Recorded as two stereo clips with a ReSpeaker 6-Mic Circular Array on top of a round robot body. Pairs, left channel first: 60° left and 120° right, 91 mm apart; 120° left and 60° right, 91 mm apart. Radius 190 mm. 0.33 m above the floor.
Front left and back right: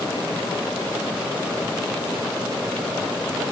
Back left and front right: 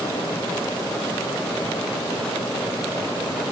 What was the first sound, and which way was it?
Only background noise.